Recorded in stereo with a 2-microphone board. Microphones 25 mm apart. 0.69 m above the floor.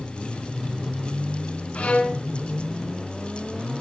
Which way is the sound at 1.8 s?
60° left (ahead or behind).